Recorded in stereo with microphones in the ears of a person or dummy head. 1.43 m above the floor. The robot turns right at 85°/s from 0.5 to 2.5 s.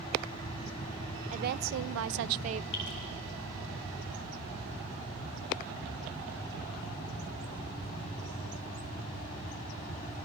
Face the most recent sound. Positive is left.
turn(degrees=70)  # may be behind; listen again after turning